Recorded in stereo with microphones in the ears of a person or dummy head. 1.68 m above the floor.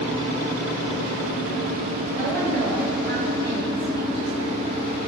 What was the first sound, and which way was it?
A woman speaking, 60° right (ahead or behind).